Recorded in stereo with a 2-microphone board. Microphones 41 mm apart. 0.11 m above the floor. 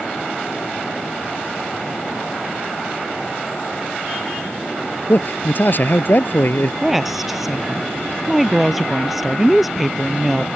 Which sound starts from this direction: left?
A man speaking, at 5.1 s.